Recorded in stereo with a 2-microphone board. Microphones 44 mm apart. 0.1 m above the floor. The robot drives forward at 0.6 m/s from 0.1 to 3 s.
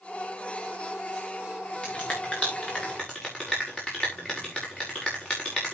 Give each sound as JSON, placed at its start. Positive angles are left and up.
{"t": 1.8, "sound": "a finger snap", "side_deg": 30, "distance_m": 6.5}